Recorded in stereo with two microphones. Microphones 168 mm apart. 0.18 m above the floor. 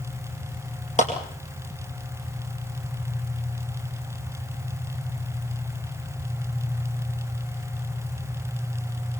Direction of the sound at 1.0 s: 50° left (ahead or behind).